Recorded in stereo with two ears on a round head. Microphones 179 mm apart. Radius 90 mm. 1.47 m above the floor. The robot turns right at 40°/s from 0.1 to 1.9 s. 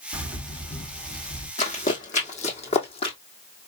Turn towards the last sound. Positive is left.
turn(degrees=30)  # may be behind; listen again after turning